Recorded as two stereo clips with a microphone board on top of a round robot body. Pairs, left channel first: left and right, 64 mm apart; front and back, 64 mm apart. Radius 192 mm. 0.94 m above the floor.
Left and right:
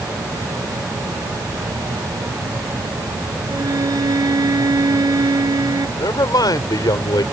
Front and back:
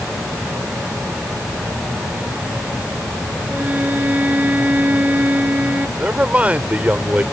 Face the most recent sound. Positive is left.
turn(degrees=110)